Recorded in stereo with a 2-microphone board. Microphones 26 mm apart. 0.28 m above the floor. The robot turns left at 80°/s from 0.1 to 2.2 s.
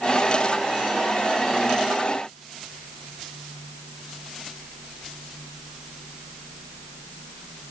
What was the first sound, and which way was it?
Only background noise.